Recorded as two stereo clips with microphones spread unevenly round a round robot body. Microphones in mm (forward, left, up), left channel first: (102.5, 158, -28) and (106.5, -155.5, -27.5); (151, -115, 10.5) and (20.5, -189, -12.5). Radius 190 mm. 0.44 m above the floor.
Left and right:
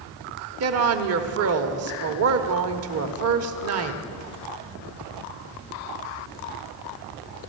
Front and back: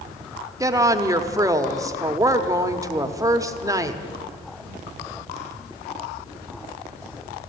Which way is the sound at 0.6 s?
100° right.